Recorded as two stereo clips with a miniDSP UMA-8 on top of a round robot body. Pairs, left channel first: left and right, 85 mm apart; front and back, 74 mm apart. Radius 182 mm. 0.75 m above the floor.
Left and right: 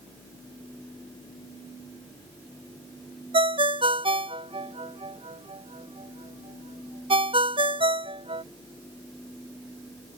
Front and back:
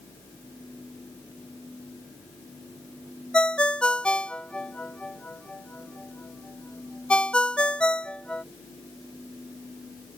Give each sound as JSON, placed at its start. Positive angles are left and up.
{"t": 3.3, "sound": "a ringtone", "azimuth_deg": -75}